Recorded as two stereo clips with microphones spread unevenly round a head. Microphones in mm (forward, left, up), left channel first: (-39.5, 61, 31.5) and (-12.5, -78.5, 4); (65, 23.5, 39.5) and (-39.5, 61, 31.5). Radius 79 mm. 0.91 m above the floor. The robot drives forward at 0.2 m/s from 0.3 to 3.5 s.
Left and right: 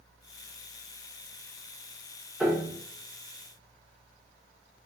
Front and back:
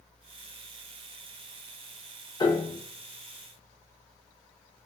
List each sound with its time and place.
2.4 s a piano: 20° right, 0.7 m; by 2.8 s 30° right, 0.7 m